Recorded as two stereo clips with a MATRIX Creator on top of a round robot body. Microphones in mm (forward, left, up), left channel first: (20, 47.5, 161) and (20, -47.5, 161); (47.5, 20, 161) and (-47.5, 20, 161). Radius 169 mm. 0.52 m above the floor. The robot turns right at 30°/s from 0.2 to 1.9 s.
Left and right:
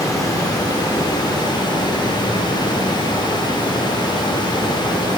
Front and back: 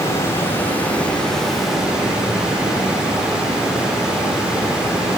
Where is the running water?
50° left, 1.3 m; by 5.2 s 100° left, 1.3 m.